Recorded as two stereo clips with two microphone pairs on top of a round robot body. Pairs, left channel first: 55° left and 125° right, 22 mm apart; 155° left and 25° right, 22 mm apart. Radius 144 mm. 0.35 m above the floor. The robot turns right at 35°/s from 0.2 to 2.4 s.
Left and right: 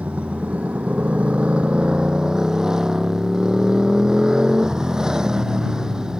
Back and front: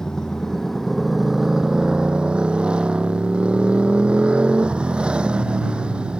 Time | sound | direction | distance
0.0 | a motorcycle | 140° right | ?